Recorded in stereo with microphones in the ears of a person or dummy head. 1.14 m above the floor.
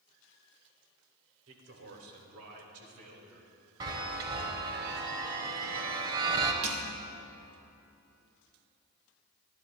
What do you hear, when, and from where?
1.5 s a man speaking: 70° right (ahead or behind), 2 m; by 3.5 s 80° right, 3 m
3.8 s a chime: 25° right (ahead or behind), 1.1 m
6.6 s crushing: 35° right (ahead or behind), 1.4 m